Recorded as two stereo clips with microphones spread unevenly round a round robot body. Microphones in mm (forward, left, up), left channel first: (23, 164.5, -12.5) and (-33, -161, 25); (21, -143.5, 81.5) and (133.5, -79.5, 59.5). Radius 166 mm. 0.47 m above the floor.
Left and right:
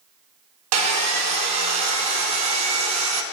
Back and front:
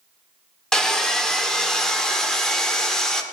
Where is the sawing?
60° right, 1.0 m.